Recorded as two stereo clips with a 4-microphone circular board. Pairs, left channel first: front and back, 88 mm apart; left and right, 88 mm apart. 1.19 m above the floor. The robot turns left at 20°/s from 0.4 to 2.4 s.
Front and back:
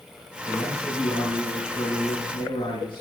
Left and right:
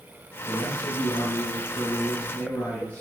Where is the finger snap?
I don't hear a finger snap.